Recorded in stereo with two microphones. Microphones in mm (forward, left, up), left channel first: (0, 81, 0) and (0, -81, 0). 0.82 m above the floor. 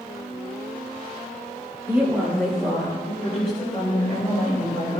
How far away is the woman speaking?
About 2 m.